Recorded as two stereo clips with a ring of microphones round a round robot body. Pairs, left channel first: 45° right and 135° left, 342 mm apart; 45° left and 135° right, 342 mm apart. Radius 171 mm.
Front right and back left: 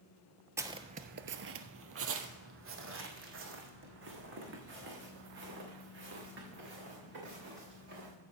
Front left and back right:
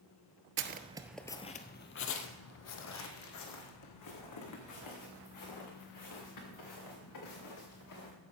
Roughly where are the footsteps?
Behind right.